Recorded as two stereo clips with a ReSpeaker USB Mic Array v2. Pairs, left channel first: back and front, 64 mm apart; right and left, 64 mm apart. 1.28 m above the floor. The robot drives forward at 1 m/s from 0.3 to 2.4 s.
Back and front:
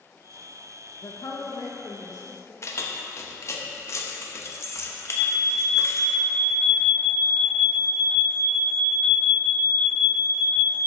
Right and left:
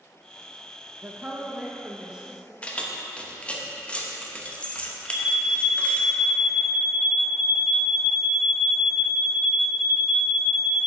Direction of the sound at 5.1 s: 10° left.